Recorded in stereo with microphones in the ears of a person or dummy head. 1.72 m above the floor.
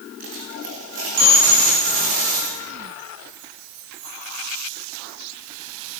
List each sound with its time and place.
0.2 s a dropped coin: 50° right (ahead or behind), 9 m